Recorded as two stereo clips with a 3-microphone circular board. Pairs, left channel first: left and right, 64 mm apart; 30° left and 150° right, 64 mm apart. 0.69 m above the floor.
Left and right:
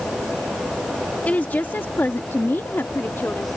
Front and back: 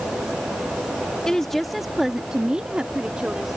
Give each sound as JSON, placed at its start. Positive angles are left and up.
{"t": 1.2, "sound": "a woman speaking", "azimuth_deg": 90}